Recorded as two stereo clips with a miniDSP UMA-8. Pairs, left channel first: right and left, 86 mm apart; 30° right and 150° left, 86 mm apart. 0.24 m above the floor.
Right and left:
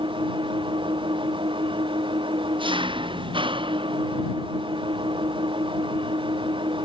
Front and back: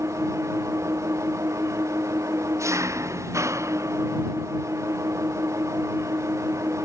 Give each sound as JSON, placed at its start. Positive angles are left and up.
{"t": 0.0, "sound": "an engine running", "azimuth_deg": 95}